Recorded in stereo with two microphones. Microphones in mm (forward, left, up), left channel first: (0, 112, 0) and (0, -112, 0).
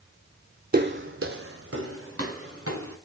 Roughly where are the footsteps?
Right.